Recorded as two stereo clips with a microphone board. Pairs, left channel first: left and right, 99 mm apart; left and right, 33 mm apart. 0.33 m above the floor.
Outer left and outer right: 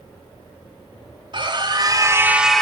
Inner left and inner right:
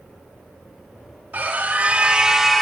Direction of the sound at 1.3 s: 55° right (ahead or behind).